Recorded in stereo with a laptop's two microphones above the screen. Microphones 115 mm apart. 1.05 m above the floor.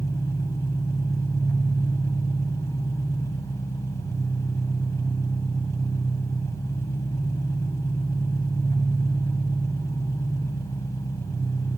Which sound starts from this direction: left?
An engine running, at 0.0 s.